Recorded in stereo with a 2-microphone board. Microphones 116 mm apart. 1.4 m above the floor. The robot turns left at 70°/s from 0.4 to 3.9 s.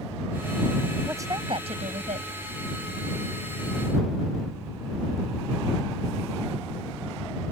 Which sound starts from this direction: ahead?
A woman speaking, at 1.1 s.